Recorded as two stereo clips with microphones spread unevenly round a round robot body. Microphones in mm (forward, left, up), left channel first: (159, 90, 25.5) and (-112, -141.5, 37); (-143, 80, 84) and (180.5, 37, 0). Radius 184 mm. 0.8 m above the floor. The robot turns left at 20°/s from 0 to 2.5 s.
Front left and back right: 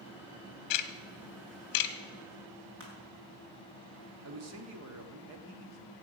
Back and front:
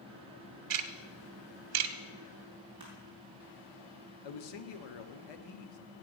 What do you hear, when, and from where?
0.7 s ticking: 30° left, 1.1 m; by 1.9 s 5° left, 1.1 m
2.8 s crushing: 85° right, 4 m
4.2 s a man speaking: 170° left, 1.5 m